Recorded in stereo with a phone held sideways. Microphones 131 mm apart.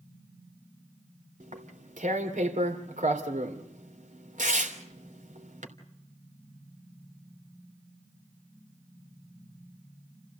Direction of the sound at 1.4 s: 75° right (ahead or behind).